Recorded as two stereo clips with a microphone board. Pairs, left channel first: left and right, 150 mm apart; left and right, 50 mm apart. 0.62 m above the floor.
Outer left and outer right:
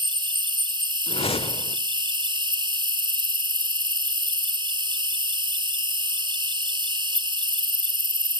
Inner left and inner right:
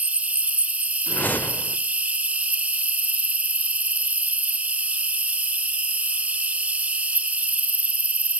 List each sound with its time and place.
0.0 s an insect: 30° right (ahead or behind), 0.8 m
1.1 s a whoosh: 40° left (ahead or behind), 1.0 m